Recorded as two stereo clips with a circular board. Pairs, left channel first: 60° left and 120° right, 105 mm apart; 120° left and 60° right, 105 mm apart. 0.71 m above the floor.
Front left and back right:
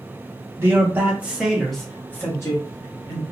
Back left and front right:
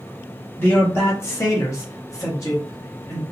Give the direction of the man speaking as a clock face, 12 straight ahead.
6 o'clock.